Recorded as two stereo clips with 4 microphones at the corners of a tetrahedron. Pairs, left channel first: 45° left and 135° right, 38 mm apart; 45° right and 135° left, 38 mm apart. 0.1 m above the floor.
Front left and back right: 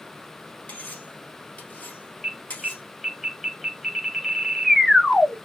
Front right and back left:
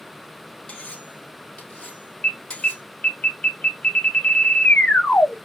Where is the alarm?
40° right, 0.9 m.